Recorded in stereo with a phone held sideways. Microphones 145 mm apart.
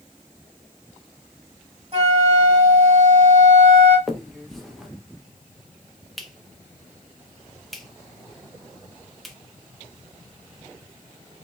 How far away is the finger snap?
About 0.7 m.